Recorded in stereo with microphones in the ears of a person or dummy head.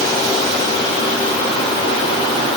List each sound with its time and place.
Only background noise.